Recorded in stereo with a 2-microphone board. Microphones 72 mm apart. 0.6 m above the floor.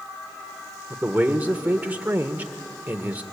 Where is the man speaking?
25° right (ahead or behind), 1.6 m.